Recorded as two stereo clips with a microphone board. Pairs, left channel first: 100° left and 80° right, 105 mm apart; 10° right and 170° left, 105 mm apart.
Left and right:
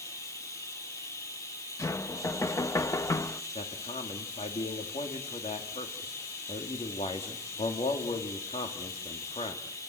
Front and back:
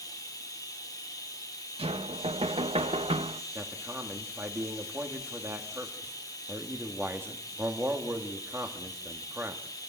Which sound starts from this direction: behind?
Knocking, at 1.8 s.